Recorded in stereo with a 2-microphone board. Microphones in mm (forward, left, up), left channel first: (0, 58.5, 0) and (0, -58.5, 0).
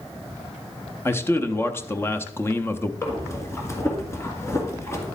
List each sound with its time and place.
1.1 s a man speaking: 20° left (ahead or behind), 0.6 m
3.0 s breathing: 25° left (ahead or behind), 1.7 m